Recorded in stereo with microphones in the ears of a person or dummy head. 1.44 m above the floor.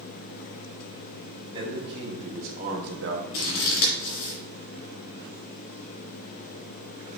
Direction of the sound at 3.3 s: 50° left (ahead or behind).